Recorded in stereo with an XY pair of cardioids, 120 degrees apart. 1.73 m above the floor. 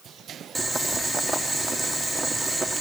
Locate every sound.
0.6 s boiling: 5° right, 1.5 m